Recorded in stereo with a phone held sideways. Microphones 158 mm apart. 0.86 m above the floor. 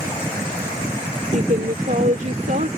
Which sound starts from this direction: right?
A woman speaking, at 1.3 s.